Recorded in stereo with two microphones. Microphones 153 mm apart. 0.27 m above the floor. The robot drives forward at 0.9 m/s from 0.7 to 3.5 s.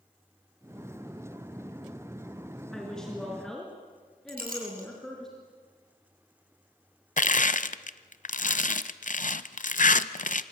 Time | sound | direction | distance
2.7 | a woman speaking | 5° left (ahead or behind) | 3.5 m
4.3 | a clink | 80° right | 6.5 m
7.2 | crushing | 65° left (ahead or behind) | 0.8 m